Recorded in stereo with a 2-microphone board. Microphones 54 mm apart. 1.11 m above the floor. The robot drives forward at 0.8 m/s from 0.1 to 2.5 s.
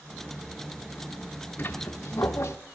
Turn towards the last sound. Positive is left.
turn(degrees=60)  # may be behind; listen again after turning